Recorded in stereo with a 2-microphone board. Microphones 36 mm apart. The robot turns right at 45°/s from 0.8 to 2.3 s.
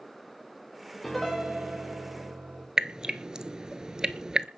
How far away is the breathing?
No breathing in this recording.